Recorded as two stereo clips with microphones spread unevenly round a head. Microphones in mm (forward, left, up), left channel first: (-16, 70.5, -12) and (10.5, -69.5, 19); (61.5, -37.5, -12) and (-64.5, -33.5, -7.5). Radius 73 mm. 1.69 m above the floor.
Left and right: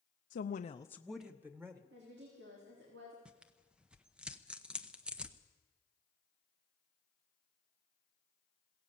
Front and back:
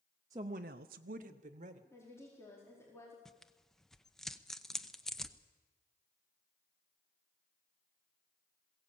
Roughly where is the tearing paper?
Right.